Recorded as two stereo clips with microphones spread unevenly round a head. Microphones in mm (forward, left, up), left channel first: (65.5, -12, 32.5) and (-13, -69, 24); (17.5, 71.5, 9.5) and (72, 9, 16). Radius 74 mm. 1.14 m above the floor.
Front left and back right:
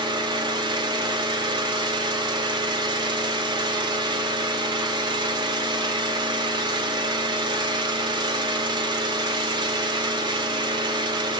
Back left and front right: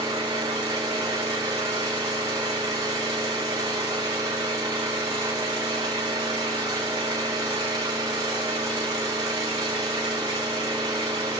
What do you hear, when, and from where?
0.0 s an engine running: 105° right, 1.1 m